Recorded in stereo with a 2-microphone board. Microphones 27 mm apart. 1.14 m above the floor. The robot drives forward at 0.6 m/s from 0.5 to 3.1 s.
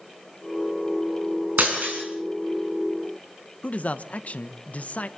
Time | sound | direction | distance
1.6 | breaking glass | 85° right | 6.5 m
3.6 | a man speaking | 65° left (ahead or behind) | 1.1 m